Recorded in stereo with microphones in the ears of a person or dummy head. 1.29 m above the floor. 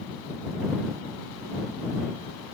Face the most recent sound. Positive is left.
No sound to turn to.